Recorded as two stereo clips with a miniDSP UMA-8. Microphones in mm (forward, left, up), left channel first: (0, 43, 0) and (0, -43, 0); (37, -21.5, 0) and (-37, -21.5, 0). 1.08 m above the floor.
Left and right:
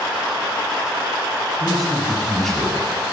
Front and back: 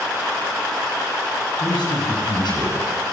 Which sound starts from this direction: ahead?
A man speaking, at 1.6 s.